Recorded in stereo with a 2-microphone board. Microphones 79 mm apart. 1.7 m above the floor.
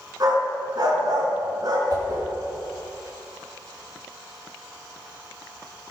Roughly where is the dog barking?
Right.